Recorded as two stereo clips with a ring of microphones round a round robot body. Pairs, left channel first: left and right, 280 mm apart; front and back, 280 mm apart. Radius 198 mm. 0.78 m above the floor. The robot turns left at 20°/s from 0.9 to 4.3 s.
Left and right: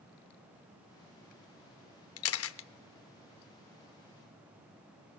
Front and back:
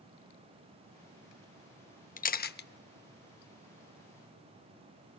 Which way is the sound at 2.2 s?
60° left.